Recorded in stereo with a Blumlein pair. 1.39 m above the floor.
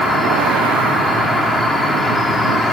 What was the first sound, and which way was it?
An insect, straight ahead.